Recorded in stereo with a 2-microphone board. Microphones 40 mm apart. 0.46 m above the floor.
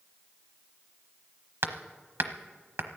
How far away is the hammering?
About 0.9 m.